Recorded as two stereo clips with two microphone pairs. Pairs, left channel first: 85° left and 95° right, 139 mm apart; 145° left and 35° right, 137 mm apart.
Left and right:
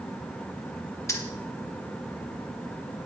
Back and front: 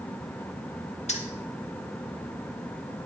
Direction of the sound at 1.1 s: 145° left.